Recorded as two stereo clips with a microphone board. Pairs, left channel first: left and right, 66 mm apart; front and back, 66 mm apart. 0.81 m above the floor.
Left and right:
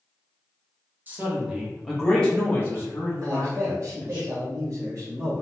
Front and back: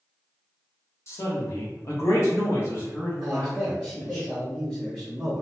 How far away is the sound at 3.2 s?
About 1.3 m.